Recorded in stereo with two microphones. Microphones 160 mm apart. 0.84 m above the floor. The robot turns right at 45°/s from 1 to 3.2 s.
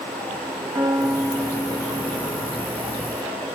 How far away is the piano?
About 1.3 m.